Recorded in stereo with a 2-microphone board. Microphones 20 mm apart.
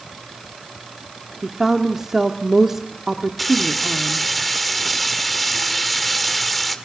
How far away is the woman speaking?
About 1.3 m.